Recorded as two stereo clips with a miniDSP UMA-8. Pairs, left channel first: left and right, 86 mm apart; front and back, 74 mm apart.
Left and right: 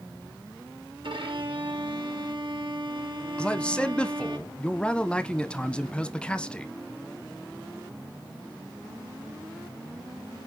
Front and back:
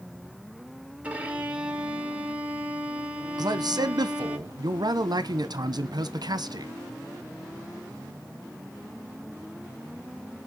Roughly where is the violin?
Right.